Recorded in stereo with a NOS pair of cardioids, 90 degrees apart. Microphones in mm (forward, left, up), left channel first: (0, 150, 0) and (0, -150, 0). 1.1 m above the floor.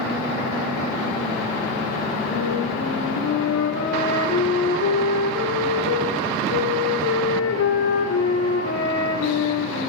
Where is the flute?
50° left, 9 m.